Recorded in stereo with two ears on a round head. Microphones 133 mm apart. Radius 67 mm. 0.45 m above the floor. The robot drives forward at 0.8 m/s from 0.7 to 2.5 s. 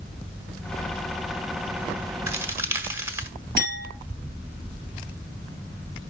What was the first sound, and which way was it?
A crack, 20° right (ahead or behind).